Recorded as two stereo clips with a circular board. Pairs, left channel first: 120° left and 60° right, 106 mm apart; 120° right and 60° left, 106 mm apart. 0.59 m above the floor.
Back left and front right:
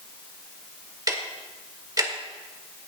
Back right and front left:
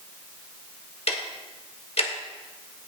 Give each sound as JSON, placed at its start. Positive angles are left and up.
{"t": 1.1, "sound": "ticking", "azimuth_deg": -115, "distance_m": 1.4}